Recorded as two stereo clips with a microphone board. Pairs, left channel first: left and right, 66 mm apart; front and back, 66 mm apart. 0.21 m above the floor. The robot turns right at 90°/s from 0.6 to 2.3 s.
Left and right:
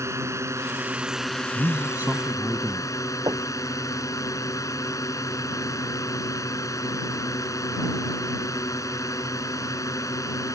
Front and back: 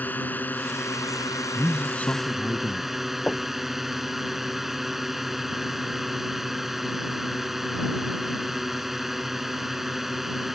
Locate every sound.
0.0 s a drone: 60° right; by 10.6 s 95° left
1.6 s a man speaking: 90° right; by 2.9 s 25° right
3.3 s knocking: 75° right